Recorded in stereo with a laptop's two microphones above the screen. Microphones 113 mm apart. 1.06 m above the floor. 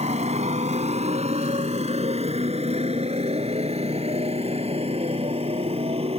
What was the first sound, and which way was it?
A motorcycle, 75° right (ahead or behind).